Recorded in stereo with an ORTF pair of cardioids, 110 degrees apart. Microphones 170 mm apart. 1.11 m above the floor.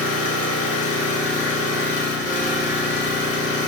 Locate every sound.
0.0 s an engine running: 45° left, 0.8 m